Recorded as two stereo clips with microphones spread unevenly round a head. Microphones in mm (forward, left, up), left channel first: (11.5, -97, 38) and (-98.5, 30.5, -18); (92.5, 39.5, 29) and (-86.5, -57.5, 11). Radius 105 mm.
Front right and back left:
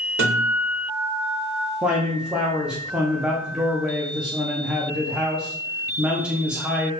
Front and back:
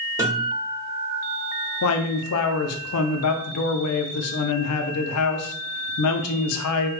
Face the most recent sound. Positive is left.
turn(degrees=50)